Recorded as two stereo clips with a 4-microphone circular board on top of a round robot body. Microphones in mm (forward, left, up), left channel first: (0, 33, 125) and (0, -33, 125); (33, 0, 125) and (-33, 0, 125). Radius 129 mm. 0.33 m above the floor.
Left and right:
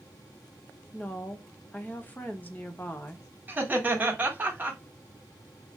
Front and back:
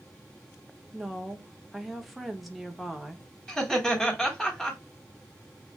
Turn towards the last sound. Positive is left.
turn(degrees=-75)